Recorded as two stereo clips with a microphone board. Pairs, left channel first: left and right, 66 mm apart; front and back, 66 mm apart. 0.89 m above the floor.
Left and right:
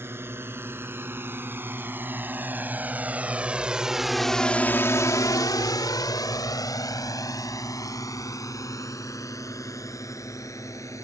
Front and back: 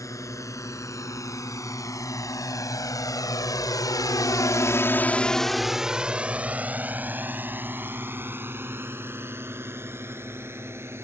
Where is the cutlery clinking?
I don't hear cutlery clinking.